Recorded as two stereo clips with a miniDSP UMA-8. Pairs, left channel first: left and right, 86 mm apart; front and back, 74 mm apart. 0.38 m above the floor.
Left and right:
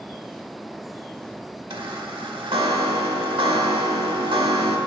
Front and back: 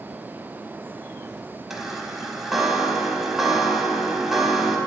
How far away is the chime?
About 0.7 m.